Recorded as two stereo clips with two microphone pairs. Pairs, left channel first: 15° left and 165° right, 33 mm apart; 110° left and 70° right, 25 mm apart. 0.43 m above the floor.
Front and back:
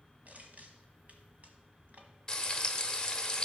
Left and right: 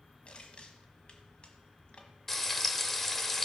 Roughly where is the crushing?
Behind left.